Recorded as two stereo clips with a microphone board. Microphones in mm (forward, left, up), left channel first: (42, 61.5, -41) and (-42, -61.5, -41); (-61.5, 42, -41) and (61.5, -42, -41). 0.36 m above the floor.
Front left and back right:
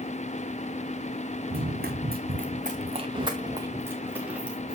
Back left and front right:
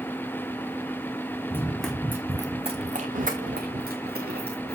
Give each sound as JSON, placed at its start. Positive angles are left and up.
{"t": 1.5, "sound": "running footsteps", "azimuth_deg": -140, "distance_m": 1.8}